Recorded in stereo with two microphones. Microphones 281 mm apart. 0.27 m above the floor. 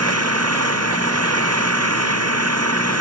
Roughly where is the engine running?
Right.